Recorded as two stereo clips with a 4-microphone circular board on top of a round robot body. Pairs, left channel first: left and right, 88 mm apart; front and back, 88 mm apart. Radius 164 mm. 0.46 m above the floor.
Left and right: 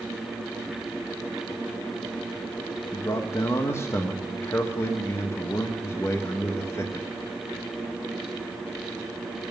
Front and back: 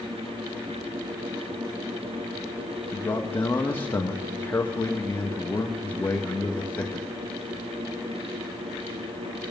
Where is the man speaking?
55° left, 1.3 m.